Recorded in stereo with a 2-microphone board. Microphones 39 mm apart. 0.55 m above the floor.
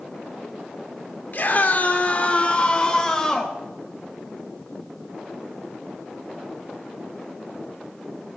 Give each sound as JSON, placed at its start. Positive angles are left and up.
{"t": 1.3, "sound": "a scream", "side_deg": 50, "distance_m": 1.7}